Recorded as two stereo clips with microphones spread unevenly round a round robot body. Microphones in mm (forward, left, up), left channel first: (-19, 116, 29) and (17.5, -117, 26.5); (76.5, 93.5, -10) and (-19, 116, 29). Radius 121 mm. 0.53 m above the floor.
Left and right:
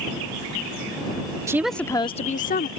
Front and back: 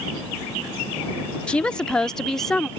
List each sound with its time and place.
1.5 s a woman speaking: 15° right; by 2.7 s 55° left